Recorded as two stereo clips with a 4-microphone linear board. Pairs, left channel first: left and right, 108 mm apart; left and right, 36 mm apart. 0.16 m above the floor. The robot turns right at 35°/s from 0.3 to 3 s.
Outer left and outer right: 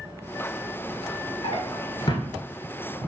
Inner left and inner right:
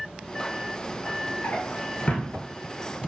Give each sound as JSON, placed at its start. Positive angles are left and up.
{"t": 1.4, "sound": "a drawer", "side_deg": 65, "distance_m": 0.6}